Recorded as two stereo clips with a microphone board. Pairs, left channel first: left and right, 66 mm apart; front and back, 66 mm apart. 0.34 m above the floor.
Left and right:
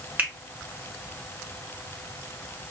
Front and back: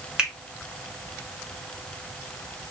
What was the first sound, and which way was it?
A finger snap, 115° right.